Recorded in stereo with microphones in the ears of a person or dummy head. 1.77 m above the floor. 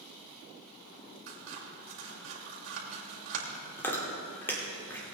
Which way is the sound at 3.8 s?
15° left (ahead or behind).